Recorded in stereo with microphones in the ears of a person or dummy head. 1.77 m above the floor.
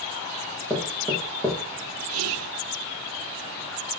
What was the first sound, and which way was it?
Knocking, 5° left (ahead or behind).